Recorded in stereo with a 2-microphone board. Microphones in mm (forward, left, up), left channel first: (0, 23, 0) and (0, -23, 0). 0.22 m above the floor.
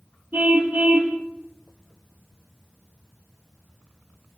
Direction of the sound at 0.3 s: 45° right (ahead or behind).